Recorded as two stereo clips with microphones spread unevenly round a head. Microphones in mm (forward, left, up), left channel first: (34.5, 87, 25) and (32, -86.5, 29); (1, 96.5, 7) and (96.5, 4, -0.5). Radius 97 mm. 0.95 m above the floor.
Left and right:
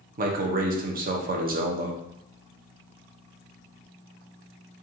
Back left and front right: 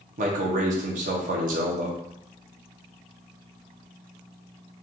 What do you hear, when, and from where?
0.2 s a man speaking: 55° right, 0.7 m